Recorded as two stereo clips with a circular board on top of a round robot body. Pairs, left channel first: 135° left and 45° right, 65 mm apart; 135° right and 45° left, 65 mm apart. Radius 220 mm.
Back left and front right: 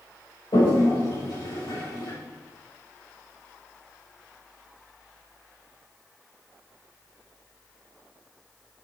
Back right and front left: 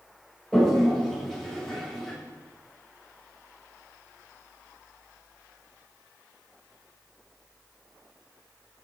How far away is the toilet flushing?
About 6 m.